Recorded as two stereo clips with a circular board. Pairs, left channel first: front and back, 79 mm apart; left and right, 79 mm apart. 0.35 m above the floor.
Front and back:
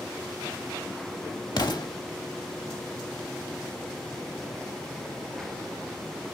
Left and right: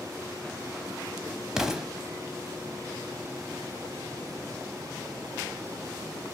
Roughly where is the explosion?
Ahead.